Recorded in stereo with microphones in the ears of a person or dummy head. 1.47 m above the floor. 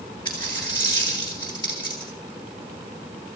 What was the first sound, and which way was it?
A dropped coin, 20° left (ahead or behind).